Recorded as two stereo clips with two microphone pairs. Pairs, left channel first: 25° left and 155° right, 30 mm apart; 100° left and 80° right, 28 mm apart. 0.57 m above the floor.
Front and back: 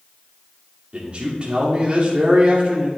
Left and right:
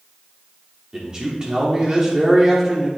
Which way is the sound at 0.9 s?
125° right.